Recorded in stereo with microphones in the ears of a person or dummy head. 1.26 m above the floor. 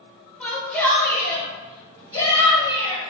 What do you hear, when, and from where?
0.4 s a shout: 5° left (ahead or behind), 1.1 m; by 3.1 s 30° left (ahead or behind), 2.5 m